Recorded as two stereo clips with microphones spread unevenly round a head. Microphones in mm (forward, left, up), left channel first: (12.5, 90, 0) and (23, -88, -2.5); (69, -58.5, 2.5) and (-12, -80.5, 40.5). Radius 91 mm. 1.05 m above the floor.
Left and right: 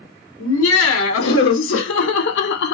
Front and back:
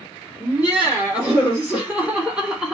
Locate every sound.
0.4 s laughter: 110° left, 2.5 m; by 2.8 s 95° left, 0.8 m